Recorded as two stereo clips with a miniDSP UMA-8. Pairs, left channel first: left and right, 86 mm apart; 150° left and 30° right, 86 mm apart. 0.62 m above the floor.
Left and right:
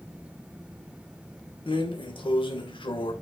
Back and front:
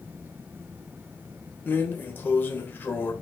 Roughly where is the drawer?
Left.